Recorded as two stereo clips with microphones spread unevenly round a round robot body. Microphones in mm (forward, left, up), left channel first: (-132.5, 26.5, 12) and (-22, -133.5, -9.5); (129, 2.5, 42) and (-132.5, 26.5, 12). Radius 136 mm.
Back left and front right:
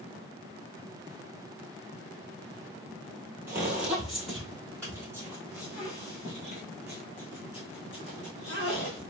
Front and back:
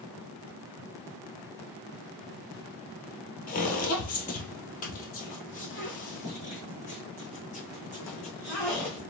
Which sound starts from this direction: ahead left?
Footsteps, at 3.5 s.